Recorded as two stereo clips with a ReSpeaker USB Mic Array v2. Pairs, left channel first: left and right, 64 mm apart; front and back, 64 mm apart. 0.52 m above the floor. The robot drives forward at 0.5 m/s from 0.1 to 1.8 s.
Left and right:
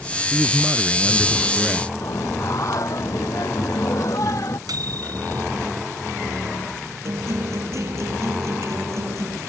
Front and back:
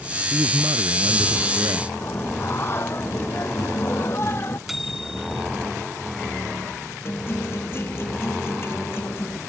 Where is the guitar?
50° right.